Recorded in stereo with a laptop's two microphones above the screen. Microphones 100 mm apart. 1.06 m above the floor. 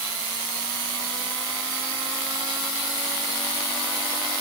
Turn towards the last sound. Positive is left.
No sound to turn to.